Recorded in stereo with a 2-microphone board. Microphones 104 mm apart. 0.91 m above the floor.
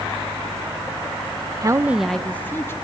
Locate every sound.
1.6 s a woman speaking: 35° right (ahead or behind), 0.6 m; by 2.7 s 25° left (ahead or behind), 1.3 m